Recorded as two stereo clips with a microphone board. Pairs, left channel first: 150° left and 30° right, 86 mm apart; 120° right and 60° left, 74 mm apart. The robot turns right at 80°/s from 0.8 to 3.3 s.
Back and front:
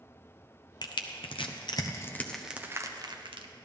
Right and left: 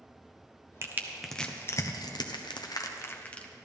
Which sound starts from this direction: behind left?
Crushing, at 0.8 s.